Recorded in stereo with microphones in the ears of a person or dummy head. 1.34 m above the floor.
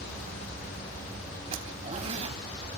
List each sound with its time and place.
1.5 s a zipper: 40° right (ahead or behind), 2.5 m